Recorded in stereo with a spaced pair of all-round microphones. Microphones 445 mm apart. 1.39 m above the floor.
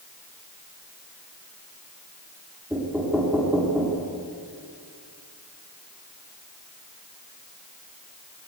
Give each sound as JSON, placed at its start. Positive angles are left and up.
{"t": 2.7, "sound": "knocking", "side_deg": -5, "distance_m": 3.5}